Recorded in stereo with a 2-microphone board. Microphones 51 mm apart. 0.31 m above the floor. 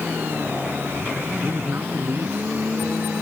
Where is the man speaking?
45° right (ahead or behind).